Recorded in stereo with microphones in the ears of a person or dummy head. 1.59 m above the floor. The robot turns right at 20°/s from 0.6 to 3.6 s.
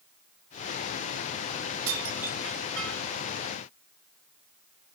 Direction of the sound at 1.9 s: 75° right (ahead or behind).